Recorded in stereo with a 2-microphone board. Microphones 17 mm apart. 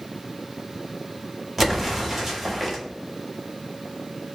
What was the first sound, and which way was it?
An explosion, 10° right (ahead or behind).